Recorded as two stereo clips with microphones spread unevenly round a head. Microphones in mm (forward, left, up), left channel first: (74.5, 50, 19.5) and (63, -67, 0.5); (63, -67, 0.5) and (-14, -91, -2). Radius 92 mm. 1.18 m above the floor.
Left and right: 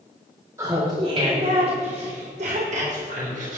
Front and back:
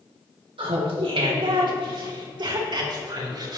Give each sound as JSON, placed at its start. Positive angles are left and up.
{"t": 0.6, "sound": "laughter", "azimuth_deg": -170, "distance_m": 2.0}